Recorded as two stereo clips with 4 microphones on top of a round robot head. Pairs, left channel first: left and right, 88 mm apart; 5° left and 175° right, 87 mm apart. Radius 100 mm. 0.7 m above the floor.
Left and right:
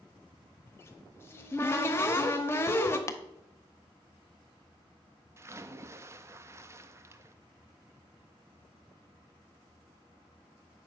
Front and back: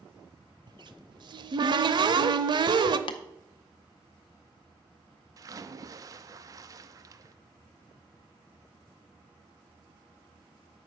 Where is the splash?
140° right, 0.6 m.